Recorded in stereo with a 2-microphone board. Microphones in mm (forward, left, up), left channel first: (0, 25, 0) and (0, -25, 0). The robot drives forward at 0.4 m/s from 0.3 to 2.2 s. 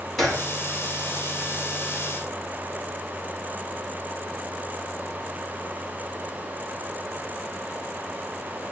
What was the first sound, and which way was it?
A gunshot, 10° left (ahead or behind).